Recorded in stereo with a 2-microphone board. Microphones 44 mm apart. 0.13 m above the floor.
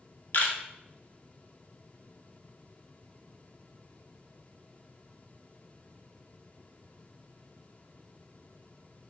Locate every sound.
0.3 s a camera shutter: 45° left (ahead or behind), 0.5 m